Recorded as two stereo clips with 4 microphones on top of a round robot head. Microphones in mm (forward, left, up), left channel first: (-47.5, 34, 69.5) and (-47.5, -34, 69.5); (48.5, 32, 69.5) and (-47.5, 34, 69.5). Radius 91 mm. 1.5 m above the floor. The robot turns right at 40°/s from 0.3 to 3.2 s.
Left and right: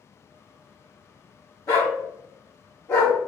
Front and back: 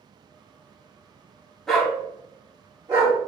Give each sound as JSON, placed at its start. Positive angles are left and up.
{"t": 1.7, "sound": "a dog barking", "azimuth_deg": 80, "distance_m": 1.2}